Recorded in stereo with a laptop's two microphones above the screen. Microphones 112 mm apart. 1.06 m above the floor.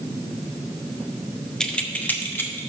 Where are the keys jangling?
5° left (ahead or behind), 0.7 m; by 2.7 s 20° left (ahead or behind), 1.4 m.